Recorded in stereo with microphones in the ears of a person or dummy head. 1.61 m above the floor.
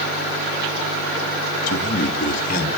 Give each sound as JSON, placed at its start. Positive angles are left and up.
{"t": 1.7, "sound": "a man speaking", "side_deg": 50, "distance_m": 3.0}